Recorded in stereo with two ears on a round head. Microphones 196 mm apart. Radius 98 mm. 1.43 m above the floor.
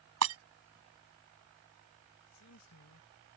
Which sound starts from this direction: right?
Breaking glass, at 0.2 s.